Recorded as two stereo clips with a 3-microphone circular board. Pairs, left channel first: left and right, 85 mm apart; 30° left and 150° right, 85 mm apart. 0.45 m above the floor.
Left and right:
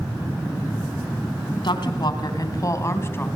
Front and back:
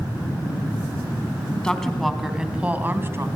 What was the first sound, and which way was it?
A woman speaking, 110° left.